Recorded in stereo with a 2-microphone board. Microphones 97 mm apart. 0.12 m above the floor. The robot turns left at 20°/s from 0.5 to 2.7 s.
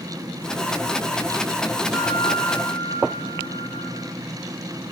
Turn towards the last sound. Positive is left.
turn(degrees=10)  # may be behind; listen again after turning